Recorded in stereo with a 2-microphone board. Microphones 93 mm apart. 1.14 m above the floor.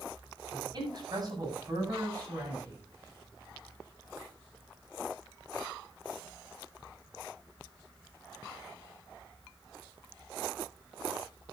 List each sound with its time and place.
0.5 s a man speaking: 50° right (ahead or behind), 8 m; by 2.8 s 30° right (ahead or behind), 8 m